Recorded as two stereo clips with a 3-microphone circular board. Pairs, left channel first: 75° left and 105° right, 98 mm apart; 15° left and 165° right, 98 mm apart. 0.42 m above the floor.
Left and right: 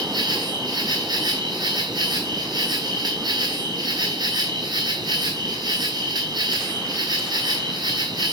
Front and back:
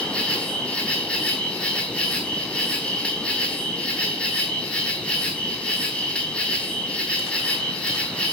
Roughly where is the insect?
Right.